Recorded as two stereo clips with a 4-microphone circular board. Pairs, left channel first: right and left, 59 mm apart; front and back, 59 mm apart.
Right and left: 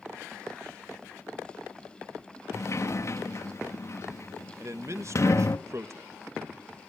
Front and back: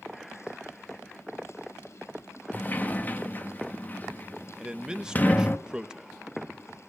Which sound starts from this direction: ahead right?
A sliding door, at 2.5 s.